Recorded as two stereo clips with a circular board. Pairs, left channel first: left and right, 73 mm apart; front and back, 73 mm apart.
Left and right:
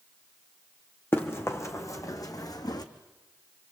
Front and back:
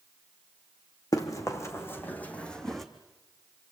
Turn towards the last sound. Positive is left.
turn(degrees=90)